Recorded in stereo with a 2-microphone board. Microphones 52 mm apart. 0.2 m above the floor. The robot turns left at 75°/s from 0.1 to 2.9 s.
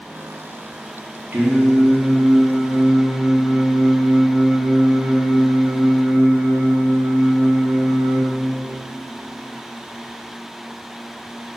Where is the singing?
45° right, 3 m; by 8.2 s 160° right, 3 m.